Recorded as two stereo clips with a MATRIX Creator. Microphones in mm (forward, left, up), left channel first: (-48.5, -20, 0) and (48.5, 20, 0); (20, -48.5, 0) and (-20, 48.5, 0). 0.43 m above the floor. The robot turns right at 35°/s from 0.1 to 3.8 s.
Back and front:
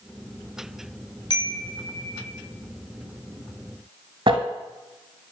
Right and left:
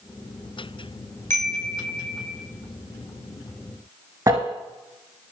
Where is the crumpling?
60° left, 1.0 m.